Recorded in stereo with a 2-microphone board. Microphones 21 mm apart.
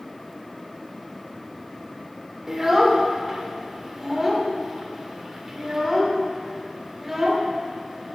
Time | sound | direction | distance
2.5 | a child speaking | 15° right (ahead or behind) | 1.4 m